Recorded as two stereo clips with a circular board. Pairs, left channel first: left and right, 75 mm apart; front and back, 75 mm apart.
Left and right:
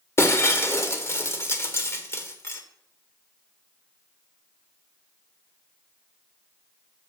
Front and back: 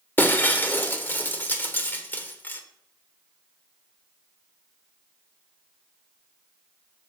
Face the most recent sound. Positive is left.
turn(degrees=55)